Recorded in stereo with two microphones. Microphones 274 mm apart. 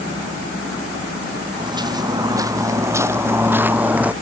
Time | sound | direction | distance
1.6 | footsteps | 15° right (ahead or behind) | ?